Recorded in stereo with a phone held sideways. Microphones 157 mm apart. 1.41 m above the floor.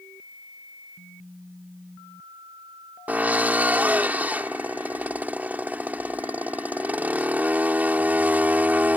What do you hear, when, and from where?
3.1 s a drill: 10° right (ahead or behind)